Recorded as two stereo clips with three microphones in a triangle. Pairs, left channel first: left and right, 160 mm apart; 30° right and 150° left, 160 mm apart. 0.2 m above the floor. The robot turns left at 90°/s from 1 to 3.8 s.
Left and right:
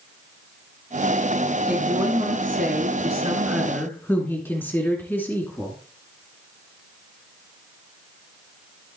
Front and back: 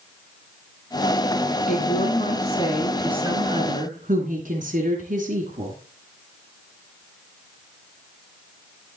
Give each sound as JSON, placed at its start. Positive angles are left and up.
{"t": 1.7, "sound": "a woman speaking", "azimuth_deg": -5, "distance_m": 2.0}